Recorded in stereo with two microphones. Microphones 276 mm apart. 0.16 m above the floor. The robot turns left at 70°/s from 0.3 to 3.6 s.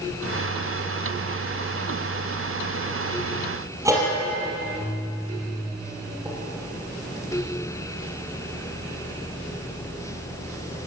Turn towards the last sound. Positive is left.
turn(degrees=-10)  # may be behind; listen again after turning